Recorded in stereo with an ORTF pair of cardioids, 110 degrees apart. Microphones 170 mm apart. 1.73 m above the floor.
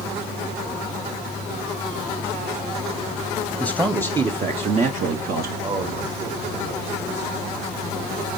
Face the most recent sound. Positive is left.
turn(degrees=-45)